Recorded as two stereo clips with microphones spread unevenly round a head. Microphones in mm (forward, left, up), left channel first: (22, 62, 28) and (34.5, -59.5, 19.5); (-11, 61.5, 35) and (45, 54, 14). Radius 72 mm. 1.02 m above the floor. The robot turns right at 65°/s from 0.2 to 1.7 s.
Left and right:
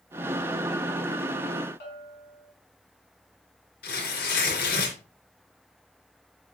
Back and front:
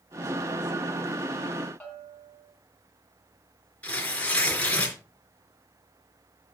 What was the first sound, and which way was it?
A bell, 110° left.